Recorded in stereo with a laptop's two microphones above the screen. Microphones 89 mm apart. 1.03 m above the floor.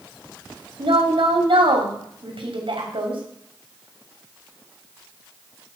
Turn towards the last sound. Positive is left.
turn(degrees=-80)